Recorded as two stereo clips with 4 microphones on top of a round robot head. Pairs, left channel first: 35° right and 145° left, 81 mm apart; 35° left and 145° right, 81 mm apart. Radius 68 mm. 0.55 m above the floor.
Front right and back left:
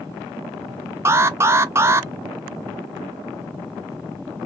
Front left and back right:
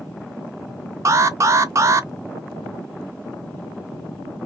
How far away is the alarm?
About 0.7 m.